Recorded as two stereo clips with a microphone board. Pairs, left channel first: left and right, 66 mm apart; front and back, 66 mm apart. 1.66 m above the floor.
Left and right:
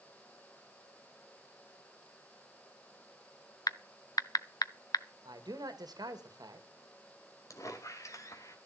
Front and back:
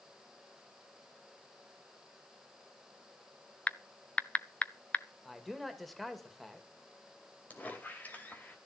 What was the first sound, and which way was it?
Typing on a keyboard, 70° left.